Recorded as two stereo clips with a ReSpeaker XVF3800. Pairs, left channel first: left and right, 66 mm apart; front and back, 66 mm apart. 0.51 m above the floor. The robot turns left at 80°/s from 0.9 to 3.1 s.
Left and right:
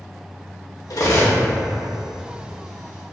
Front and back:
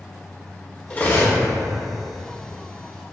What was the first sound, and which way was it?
Cutlery clinking, 65° left.